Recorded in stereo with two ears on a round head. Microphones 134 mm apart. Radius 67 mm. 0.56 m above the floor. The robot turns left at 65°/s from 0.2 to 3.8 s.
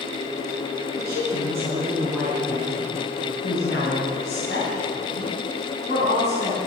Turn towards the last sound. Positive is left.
turn(degrees=75)